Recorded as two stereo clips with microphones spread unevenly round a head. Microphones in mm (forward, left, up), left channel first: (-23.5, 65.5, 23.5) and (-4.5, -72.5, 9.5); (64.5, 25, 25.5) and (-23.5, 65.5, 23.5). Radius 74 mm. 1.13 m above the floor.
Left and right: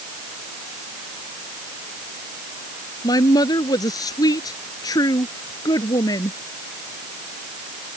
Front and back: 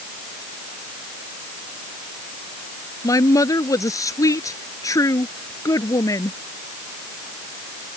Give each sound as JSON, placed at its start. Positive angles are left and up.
{"t": 3.0, "sound": "a woman speaking", "azimuth_deg": 30}